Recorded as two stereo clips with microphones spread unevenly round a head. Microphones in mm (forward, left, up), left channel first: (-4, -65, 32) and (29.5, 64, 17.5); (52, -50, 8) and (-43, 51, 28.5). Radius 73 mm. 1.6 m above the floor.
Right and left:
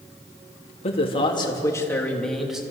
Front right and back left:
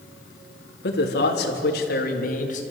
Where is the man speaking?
60° right, 3.5 m; by 2.6 s 10° right, 3 m.